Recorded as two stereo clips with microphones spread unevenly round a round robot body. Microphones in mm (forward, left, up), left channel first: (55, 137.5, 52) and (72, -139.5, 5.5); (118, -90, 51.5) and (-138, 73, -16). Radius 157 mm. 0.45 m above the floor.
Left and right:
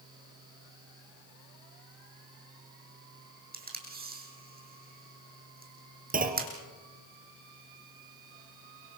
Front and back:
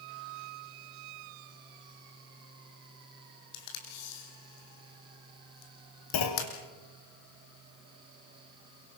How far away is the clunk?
About 2 m.